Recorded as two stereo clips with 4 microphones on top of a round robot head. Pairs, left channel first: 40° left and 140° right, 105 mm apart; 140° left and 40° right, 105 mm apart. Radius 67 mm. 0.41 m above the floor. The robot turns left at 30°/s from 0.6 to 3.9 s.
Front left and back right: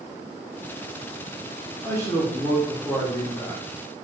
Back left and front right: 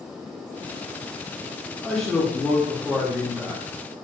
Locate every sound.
1.8 s a man speaking: 65° left, 0.8 m; by 3.6 s 15° left, 0.8 m